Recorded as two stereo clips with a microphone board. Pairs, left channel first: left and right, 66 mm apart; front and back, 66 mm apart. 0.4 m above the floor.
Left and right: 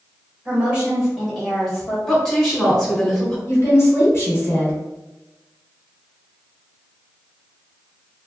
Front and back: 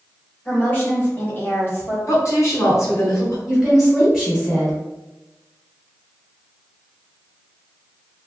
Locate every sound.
0.5 s a woman speaking: 40° right, 1.5 m; by 2.0 s 15° left, 1.7 m
2.1 s a woman speaking: 5° left, 1.6 m
3.5 s a woman speaking: 100° left, 1.8 m